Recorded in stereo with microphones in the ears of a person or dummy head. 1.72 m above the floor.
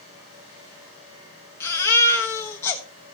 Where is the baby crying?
10° left (ahead or behind), 1.1 m.